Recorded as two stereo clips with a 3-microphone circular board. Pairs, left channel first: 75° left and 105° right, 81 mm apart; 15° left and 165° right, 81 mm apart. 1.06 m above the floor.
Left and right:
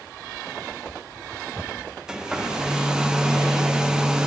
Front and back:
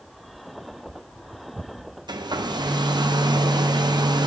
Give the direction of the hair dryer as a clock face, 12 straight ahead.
6 o'clock.